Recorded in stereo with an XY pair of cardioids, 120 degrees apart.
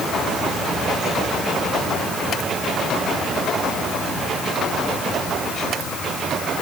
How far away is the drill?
No drill in this recording.